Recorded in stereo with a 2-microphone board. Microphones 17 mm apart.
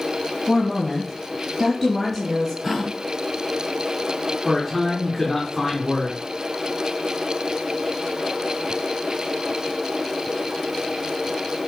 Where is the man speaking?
5° left (ahead or behind), 2.5 m.